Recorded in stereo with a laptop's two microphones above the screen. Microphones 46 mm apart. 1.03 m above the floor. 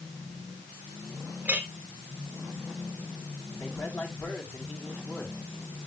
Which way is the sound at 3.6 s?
55° left (ahead or behind).